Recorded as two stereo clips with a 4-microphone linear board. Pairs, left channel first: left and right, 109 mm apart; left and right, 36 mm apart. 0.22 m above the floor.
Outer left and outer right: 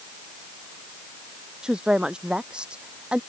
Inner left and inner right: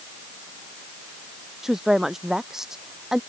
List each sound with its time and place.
1.6 s a woman speaking: 10° right (ahead or behind)